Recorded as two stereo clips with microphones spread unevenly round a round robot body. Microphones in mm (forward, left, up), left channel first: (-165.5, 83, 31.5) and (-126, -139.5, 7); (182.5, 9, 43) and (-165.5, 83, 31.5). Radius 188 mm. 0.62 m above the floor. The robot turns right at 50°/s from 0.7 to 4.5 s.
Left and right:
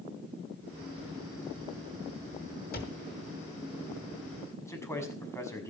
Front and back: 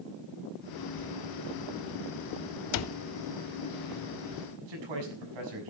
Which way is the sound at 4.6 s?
Straight behind.